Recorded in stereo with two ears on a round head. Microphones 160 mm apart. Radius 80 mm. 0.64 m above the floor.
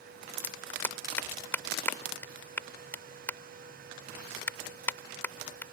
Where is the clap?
10° left (ahead or behind).